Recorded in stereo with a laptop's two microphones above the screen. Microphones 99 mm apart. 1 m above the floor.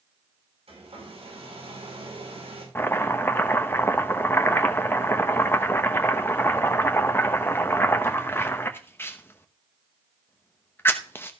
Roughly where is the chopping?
Left.